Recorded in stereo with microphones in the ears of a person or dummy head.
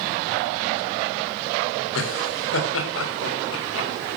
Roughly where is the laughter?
Left.